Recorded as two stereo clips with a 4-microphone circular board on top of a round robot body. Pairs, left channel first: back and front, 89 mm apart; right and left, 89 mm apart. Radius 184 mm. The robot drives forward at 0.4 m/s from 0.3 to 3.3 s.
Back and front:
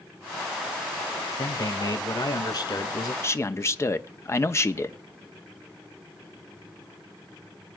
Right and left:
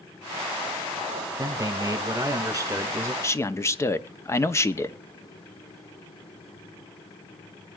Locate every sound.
1.4 s a man speaking: 135° left, 2 m; by 3.1 s 145° left, 2.5 m
3.2 s a man speaking: 135° right, 1.0 m